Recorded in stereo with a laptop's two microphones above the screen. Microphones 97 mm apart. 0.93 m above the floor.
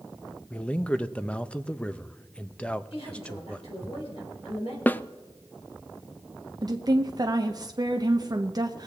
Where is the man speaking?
10° left (ahead or behind), 0.6 m.